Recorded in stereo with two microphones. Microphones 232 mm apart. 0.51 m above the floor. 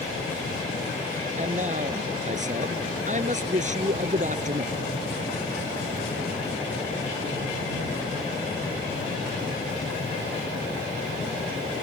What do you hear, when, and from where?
1.4 s a man speaking: 35° right (ahead or behind)